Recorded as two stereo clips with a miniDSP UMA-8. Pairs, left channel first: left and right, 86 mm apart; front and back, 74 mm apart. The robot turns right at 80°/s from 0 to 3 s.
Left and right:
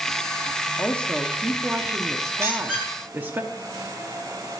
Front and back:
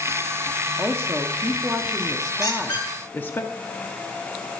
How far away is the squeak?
About 3 m.